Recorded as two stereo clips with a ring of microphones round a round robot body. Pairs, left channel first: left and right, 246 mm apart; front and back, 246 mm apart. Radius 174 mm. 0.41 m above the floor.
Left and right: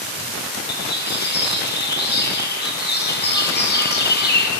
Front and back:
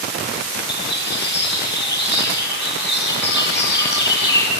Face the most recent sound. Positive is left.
turn(degrees=45)